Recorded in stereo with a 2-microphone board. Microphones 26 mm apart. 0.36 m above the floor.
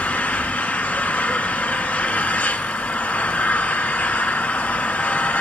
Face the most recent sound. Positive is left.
turn(degrees=80)